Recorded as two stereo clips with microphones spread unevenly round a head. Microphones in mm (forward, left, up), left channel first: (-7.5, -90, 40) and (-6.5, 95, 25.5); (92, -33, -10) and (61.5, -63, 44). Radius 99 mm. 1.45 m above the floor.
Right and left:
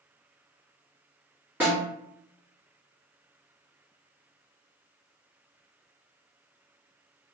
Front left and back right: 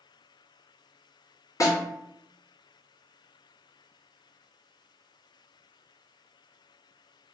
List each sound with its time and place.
1.6 s a snare drum: 5° left, 1.5 m